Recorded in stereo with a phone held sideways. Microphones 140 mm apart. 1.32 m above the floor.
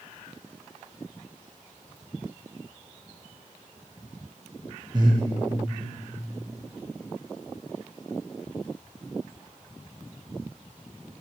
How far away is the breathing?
About 0.7 m.